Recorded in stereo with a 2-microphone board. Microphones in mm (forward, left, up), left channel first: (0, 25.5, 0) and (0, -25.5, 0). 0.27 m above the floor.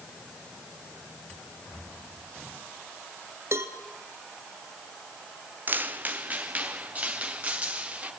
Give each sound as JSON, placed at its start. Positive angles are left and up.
{"t": 3.5, "sound": "a cowbell", "side_deg": -60, "distance_m": 2.5}
{"t": 5.7, "sound": "footsteps", "side_deg": -35, "distance_m": 1.0}